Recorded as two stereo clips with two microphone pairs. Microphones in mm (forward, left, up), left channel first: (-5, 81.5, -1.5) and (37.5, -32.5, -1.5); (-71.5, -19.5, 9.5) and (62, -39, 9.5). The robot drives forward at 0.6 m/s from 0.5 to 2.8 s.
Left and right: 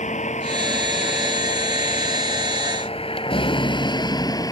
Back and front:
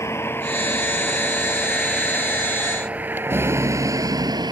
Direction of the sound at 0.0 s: 100° left.